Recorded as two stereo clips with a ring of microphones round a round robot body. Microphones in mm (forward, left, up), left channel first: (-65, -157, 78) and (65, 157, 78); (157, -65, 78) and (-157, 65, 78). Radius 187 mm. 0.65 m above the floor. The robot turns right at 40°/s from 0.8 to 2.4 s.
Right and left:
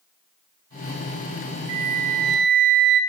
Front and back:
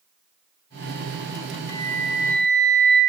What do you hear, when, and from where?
1.7 s a flute: 20° left, 0.6 m; by 3.0 s 50° left, 0.6 m